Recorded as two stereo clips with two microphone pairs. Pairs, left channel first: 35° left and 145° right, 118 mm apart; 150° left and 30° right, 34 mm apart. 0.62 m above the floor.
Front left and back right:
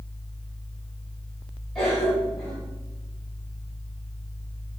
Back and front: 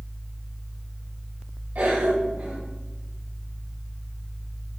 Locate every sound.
1.8 s a cough: 50° right, 3 m